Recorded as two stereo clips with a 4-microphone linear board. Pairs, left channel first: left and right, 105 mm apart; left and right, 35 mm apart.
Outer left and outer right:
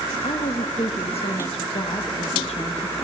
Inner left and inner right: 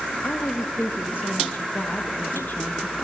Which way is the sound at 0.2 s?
75° left (ahead or behind).